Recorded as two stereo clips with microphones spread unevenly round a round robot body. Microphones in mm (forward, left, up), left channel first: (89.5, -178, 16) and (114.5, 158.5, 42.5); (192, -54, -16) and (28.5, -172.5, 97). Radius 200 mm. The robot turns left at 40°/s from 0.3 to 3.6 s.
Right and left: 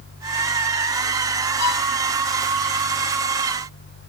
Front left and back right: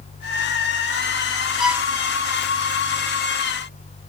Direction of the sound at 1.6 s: 50° right.